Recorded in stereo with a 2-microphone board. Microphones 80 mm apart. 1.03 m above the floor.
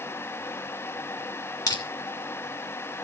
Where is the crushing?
50° left (ahead or behind), 2 m.